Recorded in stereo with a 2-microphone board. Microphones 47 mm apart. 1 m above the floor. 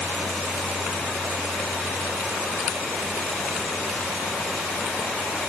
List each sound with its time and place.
Only background noise.